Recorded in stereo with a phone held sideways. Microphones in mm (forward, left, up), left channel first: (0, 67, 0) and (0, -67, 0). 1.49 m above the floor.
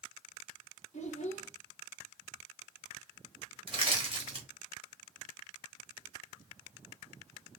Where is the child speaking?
60° left (ahead or behind), 1.1 m.